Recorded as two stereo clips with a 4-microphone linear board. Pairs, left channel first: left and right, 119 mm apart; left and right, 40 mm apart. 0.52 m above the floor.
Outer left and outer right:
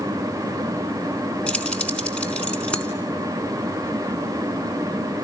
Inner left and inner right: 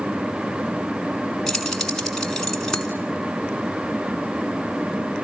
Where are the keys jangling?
10° left (ahead or behind), 4 m.